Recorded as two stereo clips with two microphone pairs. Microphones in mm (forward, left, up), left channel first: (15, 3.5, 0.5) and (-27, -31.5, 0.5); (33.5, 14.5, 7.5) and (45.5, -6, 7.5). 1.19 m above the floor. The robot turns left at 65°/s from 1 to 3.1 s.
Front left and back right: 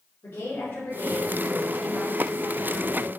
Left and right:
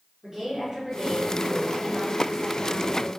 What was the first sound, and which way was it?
A woman speaking, 15° left.